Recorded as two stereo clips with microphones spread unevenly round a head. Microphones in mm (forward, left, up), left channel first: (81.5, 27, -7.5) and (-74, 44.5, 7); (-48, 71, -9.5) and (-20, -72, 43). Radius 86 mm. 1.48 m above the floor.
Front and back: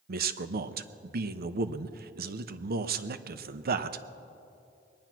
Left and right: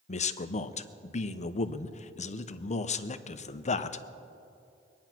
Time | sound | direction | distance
0.1 | a man speaking | 150° left | 0.8 m